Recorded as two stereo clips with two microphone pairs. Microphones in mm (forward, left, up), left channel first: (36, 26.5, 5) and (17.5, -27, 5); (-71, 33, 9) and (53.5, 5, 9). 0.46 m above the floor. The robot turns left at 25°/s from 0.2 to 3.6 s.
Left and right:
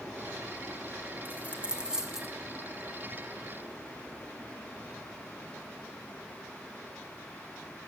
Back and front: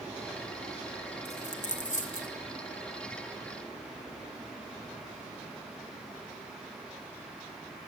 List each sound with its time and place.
1.2 s a dropped coin: 170° right, 1.4 m; by 2.3 s 165° left, 1.4 m